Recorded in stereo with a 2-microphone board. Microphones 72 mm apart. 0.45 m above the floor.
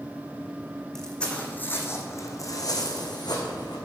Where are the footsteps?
5° left (ahead or behind), 1.7 m; by 3.8 s 75° left (ahead or behind), 2.5 m.